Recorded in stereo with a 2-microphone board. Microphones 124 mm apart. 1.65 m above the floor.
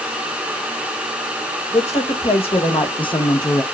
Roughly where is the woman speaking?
Left.